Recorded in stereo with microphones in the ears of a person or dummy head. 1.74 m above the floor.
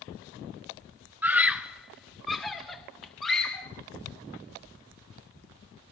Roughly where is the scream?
Centre.